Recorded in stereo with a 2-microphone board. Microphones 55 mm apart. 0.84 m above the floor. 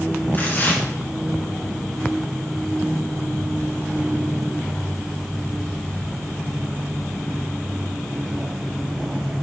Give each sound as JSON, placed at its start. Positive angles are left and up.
{"t": 0.3, "sound": "tearing paper", "side_deg": 40, "distance_m": 1.8}